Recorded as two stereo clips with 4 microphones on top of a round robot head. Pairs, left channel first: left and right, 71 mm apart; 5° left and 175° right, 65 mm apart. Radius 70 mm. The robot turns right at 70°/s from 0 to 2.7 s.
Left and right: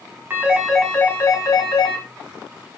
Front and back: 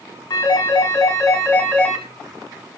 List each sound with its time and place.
0.3 s a phone ringing: 30° right, 3.5 m; by 2.0 s 95° left, 3.5 m